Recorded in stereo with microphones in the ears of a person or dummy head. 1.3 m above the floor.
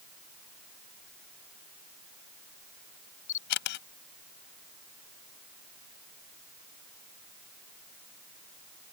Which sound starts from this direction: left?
A camera shutter, at 3.3 s.